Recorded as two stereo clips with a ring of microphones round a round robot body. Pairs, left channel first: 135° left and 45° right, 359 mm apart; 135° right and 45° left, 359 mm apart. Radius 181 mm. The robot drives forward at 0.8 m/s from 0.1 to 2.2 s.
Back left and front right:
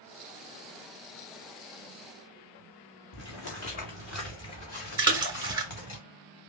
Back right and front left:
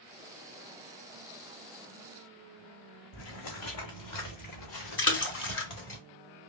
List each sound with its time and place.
3.1 s footsteps: 170° right, 1.4 m; by 6.0 s 175° right, 3.5 m
5.0 s a splash: 115° right, 1.2 m